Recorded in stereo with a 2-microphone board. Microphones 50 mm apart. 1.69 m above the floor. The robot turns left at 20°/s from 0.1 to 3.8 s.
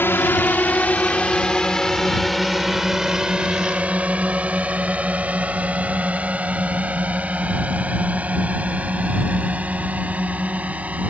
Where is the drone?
50° left (ahead or behind); by 11.1 s 30° right (ahead or behind).